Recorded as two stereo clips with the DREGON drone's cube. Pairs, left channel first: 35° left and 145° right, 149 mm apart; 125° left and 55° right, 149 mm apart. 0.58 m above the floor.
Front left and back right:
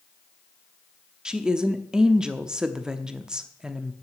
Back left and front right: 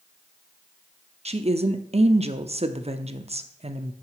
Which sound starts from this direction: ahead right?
A woman speaking, at 1.2 s.